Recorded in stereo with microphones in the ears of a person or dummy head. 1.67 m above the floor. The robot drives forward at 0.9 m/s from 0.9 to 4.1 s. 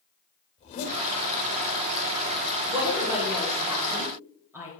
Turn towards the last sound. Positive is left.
turn(degrees=-10)  # may be behind; listen again after turning